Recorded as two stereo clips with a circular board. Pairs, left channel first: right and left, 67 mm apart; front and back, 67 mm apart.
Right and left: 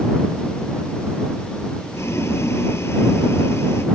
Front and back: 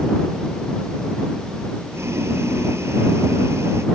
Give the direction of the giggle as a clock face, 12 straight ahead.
No giggle in this recording.